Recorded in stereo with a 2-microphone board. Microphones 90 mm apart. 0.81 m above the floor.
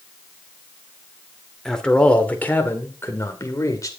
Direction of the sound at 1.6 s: 5° left (ahead or behind).